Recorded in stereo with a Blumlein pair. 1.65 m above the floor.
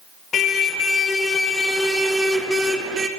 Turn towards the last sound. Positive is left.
turn(degrees=-15)